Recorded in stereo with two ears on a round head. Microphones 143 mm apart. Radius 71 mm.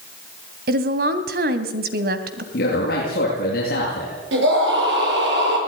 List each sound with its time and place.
0.7 s a woman speaking: 65° right (ahead or behind), 2.5 m
2.5 s a man speaking: 65° left (ahead or behind), 8 m
4.3 s a scream: 80° right, 9 m